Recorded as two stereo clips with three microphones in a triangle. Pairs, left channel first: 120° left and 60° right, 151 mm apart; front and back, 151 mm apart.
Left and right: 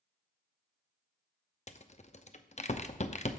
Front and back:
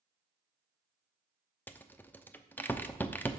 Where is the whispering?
I don't hear whispering.